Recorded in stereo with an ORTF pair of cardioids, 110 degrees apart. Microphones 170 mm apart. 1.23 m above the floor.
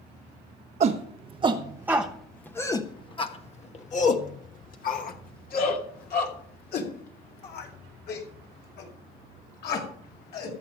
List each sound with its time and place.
0.8 s a shout: 45° right, 1.2 m; by 10.5 s 70° left, 5.5 m